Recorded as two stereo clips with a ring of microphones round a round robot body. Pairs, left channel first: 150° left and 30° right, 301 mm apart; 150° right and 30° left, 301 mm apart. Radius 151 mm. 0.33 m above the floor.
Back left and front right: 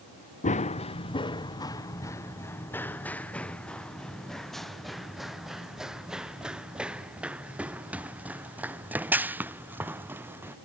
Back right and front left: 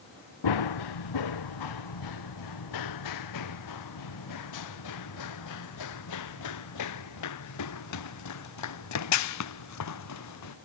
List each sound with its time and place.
0.4 s running footsteps: 140° right; by 10.5 s 115° right